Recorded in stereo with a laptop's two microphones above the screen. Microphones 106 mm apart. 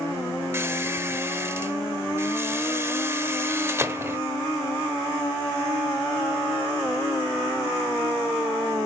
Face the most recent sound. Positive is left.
turn(degrees=-25)  # may be behind; listen again after turning